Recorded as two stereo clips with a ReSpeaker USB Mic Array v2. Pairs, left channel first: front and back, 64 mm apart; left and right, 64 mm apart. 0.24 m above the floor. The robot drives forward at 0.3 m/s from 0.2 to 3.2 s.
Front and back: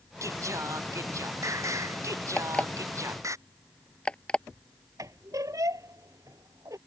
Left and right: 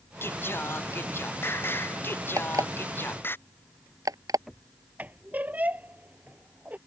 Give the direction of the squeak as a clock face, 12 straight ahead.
5 o'clock.